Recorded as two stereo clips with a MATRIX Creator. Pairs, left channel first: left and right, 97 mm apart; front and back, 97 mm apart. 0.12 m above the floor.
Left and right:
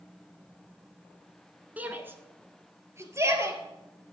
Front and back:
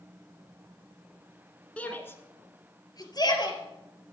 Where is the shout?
50° right, 1.5 m; by 3.6 s 35° right, 3 m.